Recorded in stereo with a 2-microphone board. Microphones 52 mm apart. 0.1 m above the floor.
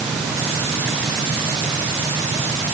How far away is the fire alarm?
I don't hear a fire alarm.